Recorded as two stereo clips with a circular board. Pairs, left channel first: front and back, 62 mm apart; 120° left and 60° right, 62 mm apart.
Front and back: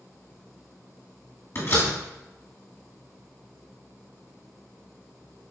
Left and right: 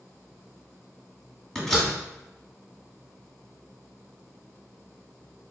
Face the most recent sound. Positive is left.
turn(degrees=40)